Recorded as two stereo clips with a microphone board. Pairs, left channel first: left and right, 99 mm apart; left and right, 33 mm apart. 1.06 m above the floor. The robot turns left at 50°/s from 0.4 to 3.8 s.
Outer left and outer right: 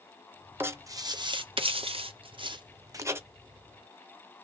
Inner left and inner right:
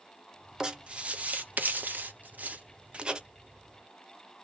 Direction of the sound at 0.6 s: 20° right (ahead or behind).